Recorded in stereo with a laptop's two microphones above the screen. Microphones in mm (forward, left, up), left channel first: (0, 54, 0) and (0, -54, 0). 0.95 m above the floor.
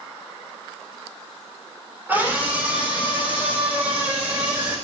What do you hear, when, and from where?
2.1 s a scream: 15° right (ahead or behind), 3 m; by 4.8 s 10° right (ahead or behind), 4.5 m